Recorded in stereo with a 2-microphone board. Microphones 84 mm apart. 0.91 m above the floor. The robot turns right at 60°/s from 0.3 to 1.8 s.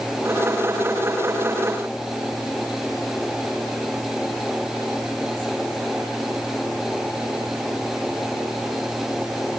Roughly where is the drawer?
No drawer in this recording.